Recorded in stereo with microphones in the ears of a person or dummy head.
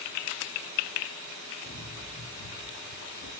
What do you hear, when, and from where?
1.6 s running footsteps: 65° left (ahead or behind), 7.5 m